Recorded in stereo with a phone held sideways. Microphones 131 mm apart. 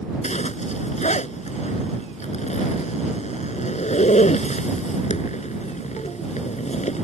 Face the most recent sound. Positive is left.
turn(degrees=60)  # may be behind; listen again after turning